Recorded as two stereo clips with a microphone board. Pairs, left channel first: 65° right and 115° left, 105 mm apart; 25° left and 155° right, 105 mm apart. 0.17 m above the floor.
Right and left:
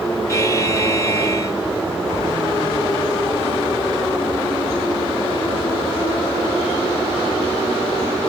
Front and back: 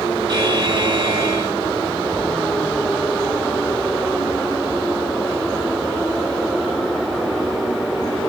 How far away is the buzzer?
About 1.4 m.